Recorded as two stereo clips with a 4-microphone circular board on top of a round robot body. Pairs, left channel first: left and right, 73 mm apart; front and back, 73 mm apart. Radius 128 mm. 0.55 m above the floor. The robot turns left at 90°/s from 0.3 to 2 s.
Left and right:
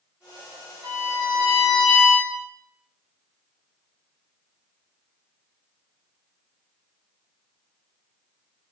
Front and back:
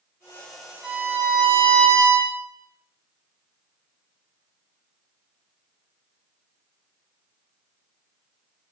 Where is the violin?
95° right, 1.8 m; by 2.3 s 160° left, 1.8 m.